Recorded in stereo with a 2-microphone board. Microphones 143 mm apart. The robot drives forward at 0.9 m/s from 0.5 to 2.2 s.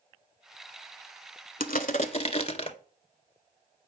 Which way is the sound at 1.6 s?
80° left.